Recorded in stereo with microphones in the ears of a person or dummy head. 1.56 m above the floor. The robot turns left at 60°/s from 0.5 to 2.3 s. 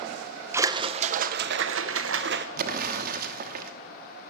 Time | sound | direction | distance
0.5 | a splash | 20° right | 0.6 m
2.6 | an explosion | 55° right (ahead or behind) | 1.0 m